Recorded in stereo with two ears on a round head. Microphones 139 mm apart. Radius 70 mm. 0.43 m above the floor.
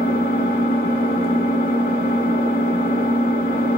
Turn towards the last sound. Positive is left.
turn(degrees=60)  # may be behind; listen again after turning